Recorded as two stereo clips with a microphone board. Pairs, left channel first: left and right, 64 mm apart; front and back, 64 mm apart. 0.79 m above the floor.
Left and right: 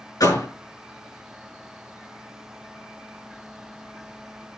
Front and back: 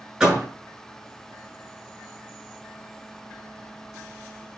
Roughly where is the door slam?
Left.